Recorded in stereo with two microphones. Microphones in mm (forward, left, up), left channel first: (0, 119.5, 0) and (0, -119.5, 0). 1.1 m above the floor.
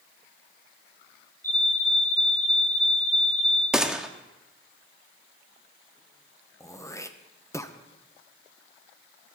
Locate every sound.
1.4 s a fire alarm: 10° left (ahead or behind), 6.5 m
3.7 s a gunshot: centre (ahead or behind), 0.9 m
6.6 s throat clearing: 10° left (ahead or behind), 0.8 m